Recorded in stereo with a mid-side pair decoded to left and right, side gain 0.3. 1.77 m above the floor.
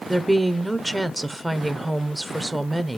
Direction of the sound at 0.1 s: 20° right.